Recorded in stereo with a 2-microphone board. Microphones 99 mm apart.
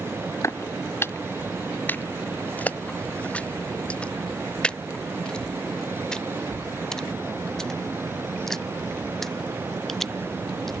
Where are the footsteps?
30° left (ahead or behind); by 10.7 s 5° left (ahead or behind).